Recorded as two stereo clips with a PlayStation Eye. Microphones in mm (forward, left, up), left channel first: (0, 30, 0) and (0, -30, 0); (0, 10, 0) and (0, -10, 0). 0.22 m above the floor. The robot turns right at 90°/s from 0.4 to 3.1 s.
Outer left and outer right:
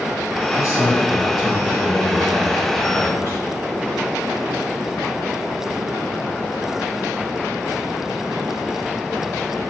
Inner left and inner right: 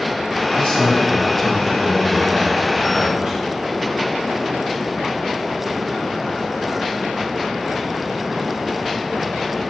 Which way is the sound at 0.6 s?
85° left.